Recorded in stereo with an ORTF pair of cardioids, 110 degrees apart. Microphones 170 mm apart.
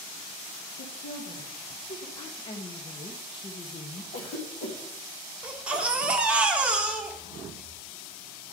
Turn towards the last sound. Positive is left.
turn(degrees=-5)